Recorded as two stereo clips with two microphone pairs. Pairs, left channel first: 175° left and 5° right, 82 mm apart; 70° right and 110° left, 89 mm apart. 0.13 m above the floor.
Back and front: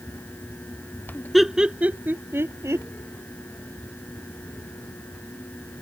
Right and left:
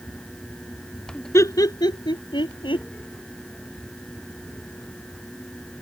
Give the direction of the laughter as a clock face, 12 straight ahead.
3 o'clock.